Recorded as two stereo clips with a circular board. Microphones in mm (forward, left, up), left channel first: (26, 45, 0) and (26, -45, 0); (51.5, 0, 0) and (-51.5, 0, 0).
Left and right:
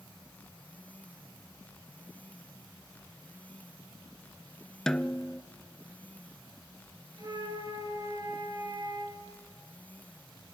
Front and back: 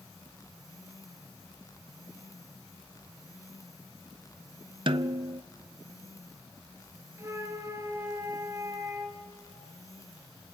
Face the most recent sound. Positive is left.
turn(degrees=-125)